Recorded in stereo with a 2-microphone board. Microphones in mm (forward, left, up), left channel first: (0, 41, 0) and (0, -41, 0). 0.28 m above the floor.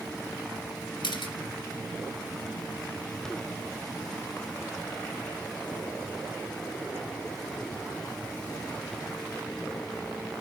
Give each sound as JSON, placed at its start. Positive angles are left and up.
{"t": 1.0, "sound": "a camera shutter", "side_deg": 65, "distance_m": 2.5}